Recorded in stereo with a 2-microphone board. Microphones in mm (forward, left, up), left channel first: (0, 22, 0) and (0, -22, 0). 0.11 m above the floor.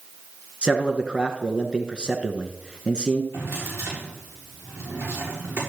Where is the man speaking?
20° right (ahead or behind), 1.2 m.